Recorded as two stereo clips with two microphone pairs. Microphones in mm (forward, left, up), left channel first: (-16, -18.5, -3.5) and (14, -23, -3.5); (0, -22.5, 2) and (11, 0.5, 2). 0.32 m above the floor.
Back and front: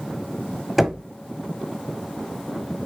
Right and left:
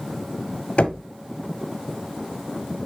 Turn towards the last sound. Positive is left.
turn(degrees=-95)